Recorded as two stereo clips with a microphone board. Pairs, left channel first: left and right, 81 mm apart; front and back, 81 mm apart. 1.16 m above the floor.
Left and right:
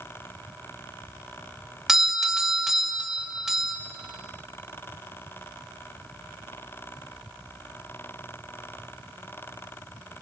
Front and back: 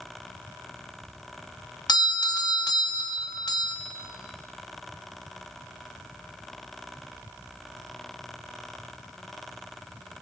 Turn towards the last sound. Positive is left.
turn(degrees=-5)